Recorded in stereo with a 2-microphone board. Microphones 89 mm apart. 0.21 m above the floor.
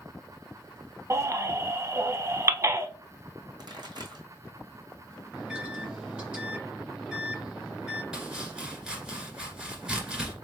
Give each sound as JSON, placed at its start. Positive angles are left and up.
{"t": 1.1, "sound": "a baby crying", "side_deg": -35, "distance_m": 0.5}
{"t": 3.6, "sound": "a pop", "side_deg": -60, "distance_m": 2.0}
{"t": 5.3, "sound": "a microwave", "side_deg": -15, "distance_m": 1.5}
{"t": 8.1, "sound": "chopping", "side_deg": -10, "distance_m": 2.0}